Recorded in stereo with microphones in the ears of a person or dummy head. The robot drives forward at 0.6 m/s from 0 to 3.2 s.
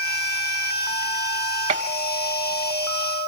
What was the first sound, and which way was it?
A gunshot, 25° right (ahead or behind).